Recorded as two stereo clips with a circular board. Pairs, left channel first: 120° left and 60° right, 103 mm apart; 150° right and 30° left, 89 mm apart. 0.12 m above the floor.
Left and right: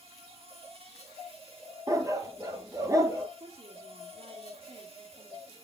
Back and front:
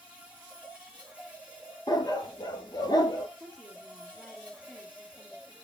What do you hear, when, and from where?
0.0 s an insect: 50° right, 3 m
1.9 s a dog barking: 115° right, 1.1 m
3.4 s a woman speaking: 65° right, 2.5 m